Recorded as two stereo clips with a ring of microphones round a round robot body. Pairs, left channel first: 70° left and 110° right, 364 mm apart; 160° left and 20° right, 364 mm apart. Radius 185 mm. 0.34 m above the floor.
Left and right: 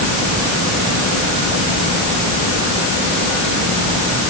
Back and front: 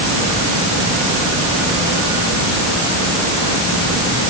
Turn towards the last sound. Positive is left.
No sound to turn to.